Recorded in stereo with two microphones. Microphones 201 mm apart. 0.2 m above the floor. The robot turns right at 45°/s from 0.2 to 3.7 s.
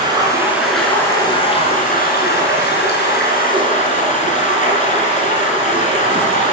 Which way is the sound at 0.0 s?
25° right.